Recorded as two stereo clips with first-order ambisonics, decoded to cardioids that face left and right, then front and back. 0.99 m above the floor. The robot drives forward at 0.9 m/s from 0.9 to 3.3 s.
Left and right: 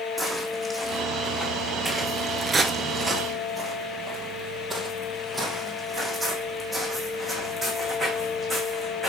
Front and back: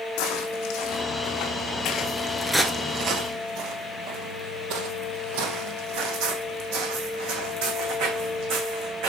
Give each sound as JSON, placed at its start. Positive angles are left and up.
{"t": 0.2, "sound": "footsteps", "azimuth_deg": -5, "distance_m": 3.0}